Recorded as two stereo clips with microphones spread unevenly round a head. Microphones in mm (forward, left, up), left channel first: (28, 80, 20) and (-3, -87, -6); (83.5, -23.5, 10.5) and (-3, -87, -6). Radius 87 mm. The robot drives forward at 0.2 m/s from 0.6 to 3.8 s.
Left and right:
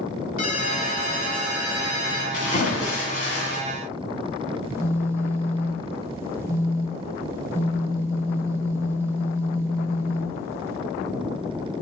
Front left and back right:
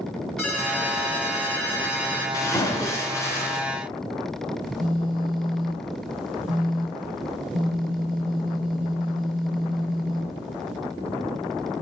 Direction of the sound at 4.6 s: 175° right.